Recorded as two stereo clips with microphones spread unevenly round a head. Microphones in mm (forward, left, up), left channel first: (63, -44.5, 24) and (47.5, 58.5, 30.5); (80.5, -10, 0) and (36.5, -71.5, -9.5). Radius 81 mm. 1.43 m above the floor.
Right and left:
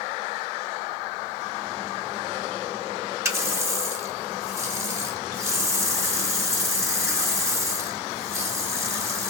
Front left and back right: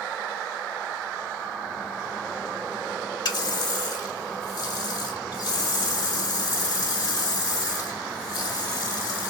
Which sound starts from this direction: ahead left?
A running tap, at 3.2 s.